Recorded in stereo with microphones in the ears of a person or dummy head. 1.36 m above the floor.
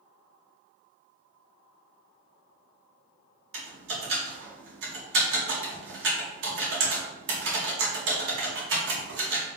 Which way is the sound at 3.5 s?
70° right (ahead or behind).